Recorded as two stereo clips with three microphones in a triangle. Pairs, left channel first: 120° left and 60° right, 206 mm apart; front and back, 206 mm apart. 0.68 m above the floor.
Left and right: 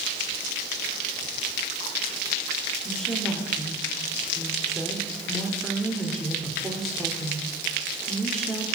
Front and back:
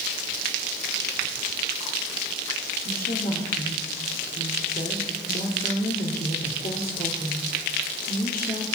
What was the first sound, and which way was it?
A woman speaking, 30° left.